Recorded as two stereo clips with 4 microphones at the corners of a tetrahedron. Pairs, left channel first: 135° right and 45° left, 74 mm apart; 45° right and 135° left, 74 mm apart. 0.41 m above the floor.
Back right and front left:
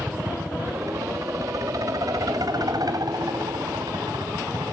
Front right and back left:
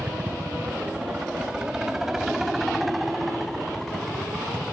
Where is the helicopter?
80° left; by 4.7 s 40° left.